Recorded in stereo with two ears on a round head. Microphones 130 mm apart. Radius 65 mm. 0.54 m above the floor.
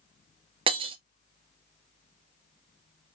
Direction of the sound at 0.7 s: 35° right (ahead or behind).